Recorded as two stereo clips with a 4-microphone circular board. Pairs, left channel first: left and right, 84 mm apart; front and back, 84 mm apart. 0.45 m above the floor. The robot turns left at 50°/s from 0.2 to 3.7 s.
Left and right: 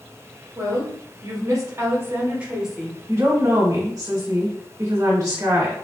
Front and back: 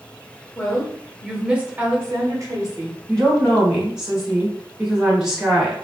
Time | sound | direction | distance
0.6 | a woman speaking | 65° right | 1.2 m
3.1 | a woman speaking | 70° right | 1.8 m